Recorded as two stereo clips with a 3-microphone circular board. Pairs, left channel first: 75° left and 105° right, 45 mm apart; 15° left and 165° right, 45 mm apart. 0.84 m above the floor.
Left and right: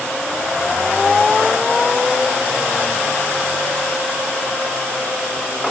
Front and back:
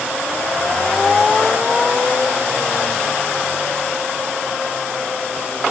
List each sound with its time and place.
Only background noise.